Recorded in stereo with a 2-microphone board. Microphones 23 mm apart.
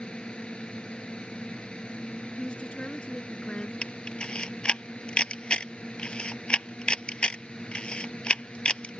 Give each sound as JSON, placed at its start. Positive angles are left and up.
{"t": 0.0, "sound": "a drone", "side_deg": 50}
{"t": 2.4, "sound": "a woman speaking", "side_deg": 60}
{"t": 3.8, "sound": "a camera shutter", "side_deg": 50}